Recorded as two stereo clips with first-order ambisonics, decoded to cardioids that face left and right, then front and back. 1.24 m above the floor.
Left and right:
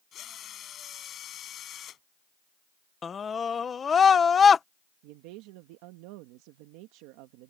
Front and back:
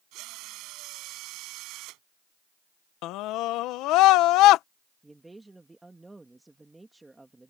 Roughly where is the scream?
Ahead left.